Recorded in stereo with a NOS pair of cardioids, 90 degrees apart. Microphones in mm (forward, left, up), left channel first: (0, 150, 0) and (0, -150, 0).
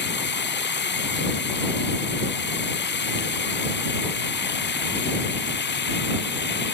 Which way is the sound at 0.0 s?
35° left.